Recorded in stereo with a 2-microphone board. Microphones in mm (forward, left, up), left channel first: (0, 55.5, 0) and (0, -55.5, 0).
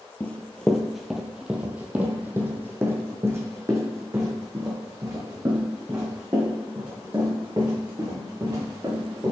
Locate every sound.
0.2 s running footsteps: 15° left (ahead or behind), 0.9 m; by 9.3 s 35° right (ahead or behind), 5 m